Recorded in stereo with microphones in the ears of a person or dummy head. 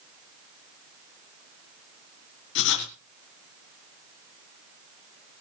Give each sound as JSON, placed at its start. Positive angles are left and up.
{"t": 2.5, "sound": "writing", "side_deg": 65, "distance_m": 4.0}